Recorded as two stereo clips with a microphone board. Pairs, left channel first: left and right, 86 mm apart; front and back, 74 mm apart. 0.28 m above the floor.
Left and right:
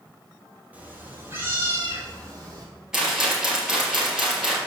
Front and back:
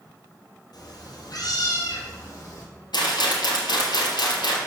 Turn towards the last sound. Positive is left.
turn(degrees=-5)